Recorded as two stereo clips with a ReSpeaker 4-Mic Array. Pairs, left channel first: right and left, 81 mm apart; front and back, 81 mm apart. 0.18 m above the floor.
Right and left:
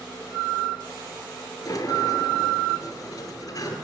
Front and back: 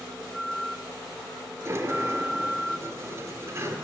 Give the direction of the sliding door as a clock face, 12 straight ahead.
4 o'clock.